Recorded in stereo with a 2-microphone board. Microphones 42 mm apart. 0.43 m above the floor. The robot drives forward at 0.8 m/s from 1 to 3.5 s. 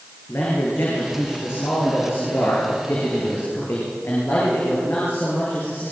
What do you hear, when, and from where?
0.3 s a man speaking: 70° left (ahead or behind), 8.5 m; by 5.9 s 60° left (ahead or behind), 9 m